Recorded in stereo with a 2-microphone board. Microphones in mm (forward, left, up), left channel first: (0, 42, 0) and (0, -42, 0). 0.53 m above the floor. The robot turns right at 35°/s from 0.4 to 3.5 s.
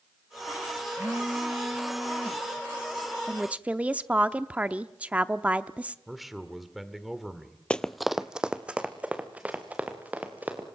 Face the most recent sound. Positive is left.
turn(degrees=-20)  # may be behind; listen again after turning